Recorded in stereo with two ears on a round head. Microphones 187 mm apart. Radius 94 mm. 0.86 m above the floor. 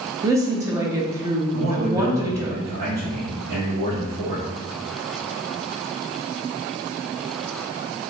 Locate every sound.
0.2 s a woman speaking: 15° right (ahead or behind), 0.7 m
1.5 s a man speaking: 45° right (ahead or behind), 1.3 m